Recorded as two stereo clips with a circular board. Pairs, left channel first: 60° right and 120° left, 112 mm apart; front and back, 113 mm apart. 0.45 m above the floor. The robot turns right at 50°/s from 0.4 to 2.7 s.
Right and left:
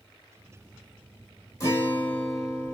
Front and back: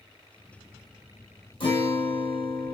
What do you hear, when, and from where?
1.6 s a guitar: 15° right, 1.7 m; by 2.7 s 40° left, 1.7 m